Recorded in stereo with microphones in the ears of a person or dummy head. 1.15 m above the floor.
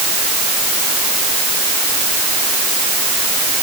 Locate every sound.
Only background noise.